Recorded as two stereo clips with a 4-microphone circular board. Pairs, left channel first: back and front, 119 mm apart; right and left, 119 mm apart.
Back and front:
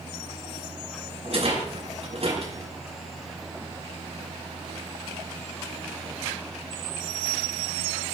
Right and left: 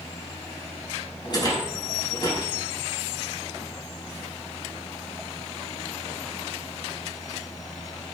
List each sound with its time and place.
1.2 s a rattle: 35° right, 5.5 m